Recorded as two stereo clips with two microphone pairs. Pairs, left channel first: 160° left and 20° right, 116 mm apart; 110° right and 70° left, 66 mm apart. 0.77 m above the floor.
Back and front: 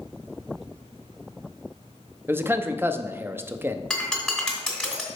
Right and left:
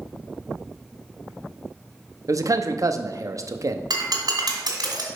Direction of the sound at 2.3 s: 45° left.